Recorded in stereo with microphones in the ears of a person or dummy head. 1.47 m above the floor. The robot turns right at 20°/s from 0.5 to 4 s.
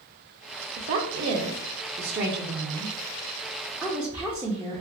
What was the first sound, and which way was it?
A woman speaking, 70° right.